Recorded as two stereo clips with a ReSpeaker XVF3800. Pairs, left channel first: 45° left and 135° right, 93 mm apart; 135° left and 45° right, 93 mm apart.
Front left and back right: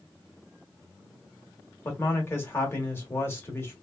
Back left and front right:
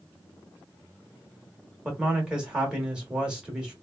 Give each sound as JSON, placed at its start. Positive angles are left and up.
{"t": 1.9, "sound": "a man speaking", "azimuth_deg": 25, "distance_m": 1.0}